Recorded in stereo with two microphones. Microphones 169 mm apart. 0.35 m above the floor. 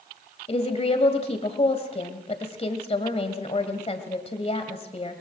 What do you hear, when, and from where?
0.5 s a woman speaking: 40° left (ahead or behind), 1.8 m